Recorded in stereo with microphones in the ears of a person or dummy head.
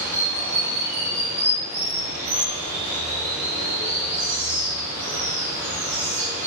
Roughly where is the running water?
Centre.